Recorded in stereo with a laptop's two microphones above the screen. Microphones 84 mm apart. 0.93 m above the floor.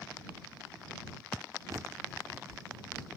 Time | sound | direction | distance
1.7 | a bird | 40° right (ahead or behind) | ?